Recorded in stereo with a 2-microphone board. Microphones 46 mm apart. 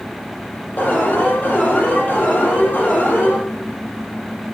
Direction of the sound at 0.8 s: 40° left (ahead or behind).